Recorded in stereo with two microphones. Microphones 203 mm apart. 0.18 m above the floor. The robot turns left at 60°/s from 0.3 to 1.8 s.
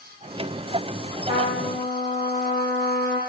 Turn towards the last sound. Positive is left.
turn(degrees=25)